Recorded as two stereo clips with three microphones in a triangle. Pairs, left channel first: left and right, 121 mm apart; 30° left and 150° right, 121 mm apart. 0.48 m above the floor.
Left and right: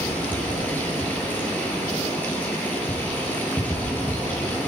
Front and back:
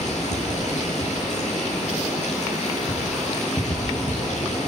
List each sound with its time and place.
0.0 s running water: 15° left, 8 m